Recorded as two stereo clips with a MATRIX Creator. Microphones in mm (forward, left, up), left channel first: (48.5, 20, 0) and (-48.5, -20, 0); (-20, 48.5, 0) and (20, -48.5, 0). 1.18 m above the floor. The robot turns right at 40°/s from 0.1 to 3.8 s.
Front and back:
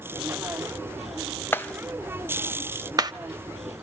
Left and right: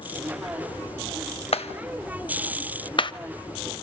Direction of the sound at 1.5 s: 90° left.